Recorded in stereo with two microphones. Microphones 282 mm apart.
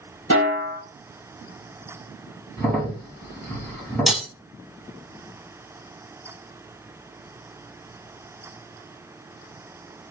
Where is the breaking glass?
Centre (ahead or behind), 1.1 m.